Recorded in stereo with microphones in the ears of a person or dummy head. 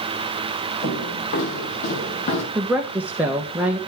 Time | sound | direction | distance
0.8 | footsteps | 55° left (ahead or behind) | 4.5 m
2.5 | a woman speaking | 10° right (ahead or behind) | 1.1 m